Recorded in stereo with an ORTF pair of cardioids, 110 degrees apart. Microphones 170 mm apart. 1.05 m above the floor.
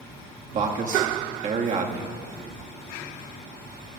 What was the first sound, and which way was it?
A man speaking, 50° right.